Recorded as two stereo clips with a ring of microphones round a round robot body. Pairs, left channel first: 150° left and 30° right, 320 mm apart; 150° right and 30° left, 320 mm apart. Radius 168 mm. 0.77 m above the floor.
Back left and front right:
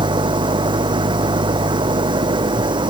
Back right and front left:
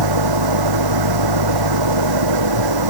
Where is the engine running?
45° left.